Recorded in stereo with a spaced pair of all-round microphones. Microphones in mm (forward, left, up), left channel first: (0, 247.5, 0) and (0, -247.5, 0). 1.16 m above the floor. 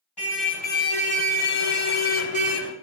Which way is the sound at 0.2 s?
50° left (ahead or behind).